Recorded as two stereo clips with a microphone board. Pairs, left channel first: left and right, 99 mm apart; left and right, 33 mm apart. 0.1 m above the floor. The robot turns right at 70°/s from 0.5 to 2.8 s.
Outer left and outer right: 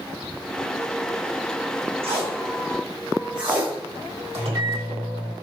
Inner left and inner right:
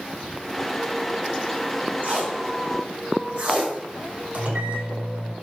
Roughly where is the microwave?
Right.